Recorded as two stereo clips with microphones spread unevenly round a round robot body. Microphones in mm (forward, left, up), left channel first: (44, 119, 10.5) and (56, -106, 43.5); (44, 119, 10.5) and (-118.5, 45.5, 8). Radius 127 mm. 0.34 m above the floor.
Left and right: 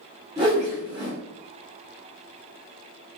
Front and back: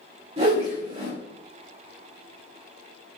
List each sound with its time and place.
0.4 s a whoosh: 160° right, 1.1 m